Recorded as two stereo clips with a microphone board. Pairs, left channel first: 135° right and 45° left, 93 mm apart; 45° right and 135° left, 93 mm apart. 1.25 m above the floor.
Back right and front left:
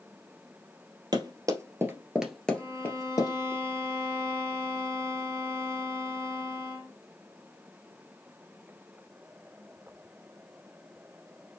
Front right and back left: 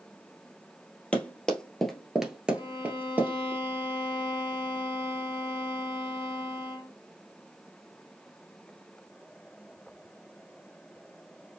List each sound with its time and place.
1.1 s running footsteps: 30° left, 1.7 m; by 3.5 s 165° right, 1.8 m
2.5 s a violin: 15° right, 1.6 m